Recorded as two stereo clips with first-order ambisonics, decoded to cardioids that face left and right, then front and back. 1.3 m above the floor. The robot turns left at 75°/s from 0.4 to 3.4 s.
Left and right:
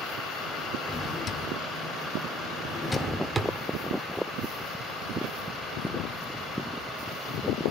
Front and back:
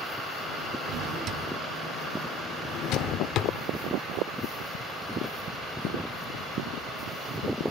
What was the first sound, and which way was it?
A drawer, 170° left.